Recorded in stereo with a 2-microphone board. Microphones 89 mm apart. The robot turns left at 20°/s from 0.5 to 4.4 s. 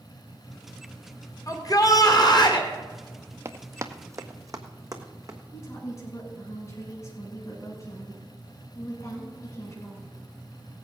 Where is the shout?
40° left (ahead or behind), 2 m; by 2.7 s 60° left (ahead or behind), 2 m.